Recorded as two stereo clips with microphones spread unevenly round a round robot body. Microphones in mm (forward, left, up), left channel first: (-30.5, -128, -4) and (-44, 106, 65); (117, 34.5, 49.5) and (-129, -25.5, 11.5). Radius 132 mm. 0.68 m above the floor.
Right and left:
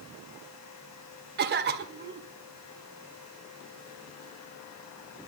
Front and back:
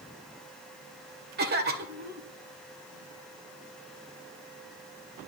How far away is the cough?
About 2 m.